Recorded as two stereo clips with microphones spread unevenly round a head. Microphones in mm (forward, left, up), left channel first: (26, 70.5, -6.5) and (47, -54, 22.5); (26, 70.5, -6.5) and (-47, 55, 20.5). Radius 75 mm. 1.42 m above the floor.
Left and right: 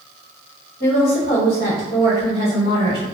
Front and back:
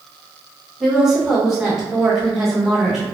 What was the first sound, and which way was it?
A woman speaking, 110° left.